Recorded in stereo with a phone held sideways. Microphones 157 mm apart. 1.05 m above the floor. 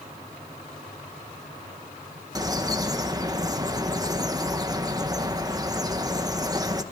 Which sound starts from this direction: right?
A bird, at 2.4 s.